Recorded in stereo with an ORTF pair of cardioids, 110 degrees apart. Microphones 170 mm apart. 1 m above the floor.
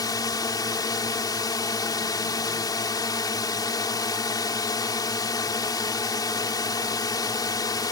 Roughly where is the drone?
Ahead left.